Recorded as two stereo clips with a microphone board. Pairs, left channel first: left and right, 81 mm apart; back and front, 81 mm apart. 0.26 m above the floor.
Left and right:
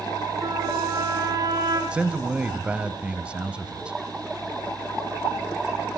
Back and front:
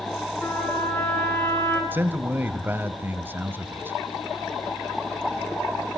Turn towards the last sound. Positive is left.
turn(degrees=-30)